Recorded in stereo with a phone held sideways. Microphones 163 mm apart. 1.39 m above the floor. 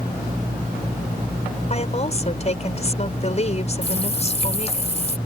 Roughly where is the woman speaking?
Left.